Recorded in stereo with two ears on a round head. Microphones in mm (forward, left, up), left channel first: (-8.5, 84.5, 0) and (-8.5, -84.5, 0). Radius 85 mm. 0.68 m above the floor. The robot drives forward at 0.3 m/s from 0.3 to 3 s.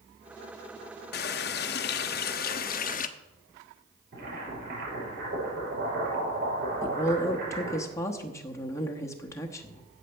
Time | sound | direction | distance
1.1 | a running tap | 60° left (ahead or behind) | 0.7 m
4.1 | boiling | 55° right (ahead or behind) | 6 m
6.8 | a woman speaking | 15° left (ahead or behind) | 1.0 m